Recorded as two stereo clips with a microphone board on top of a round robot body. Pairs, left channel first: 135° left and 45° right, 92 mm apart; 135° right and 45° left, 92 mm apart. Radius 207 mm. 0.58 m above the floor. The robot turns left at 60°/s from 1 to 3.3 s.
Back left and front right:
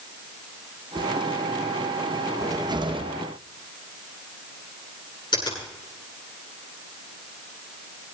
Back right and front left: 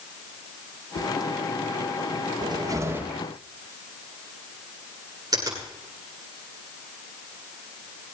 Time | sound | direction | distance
0.9 | a whoosh | 110° right | 2 m
2.4 | a cupboard door | 10° left | 1.6 m
5.3 | a finger snap | 95° left | 10 m